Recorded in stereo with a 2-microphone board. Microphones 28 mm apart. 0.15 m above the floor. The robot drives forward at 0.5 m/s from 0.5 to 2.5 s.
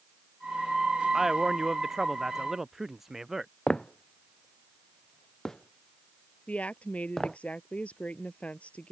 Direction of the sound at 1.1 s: 10° right (ahead or behind).